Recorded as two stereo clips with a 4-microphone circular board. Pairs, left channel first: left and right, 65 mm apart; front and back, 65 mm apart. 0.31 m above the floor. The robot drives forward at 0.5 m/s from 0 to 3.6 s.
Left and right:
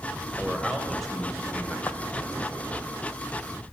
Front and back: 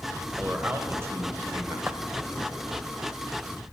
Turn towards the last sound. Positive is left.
turn(degrees=165)